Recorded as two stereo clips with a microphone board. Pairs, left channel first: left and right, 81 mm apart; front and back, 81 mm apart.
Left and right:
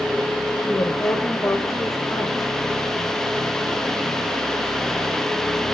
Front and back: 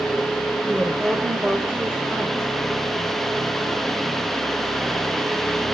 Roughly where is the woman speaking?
Behind left.